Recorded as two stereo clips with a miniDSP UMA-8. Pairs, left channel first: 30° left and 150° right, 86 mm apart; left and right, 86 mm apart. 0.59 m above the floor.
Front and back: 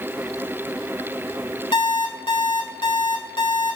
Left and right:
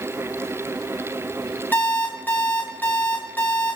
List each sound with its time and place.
1.7 s an alarm clock: 20° left, 1.7 m